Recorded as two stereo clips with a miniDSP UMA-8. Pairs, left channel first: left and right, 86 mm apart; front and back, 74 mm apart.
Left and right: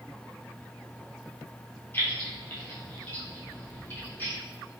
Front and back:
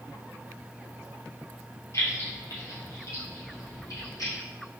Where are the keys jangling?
30° left, 2.0 m; by 4.3 s 20° left, 3.5 m.